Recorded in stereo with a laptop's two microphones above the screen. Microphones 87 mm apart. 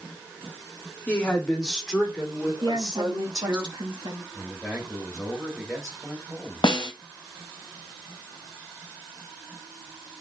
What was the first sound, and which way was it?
A woman speaking, 20° left (ahead or behind).